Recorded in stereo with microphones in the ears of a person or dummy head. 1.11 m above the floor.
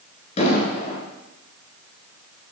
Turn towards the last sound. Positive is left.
turn(degrees=40)  # may be behind; listen again after turning